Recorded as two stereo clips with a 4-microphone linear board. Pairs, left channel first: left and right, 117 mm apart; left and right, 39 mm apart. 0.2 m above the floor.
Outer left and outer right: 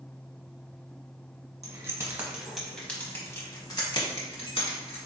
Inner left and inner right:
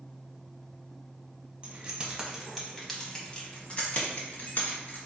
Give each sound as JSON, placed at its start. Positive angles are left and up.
{"t": 1.6, "sound": "keys jangling", "side_deg": -30, "distance_m": 1.0}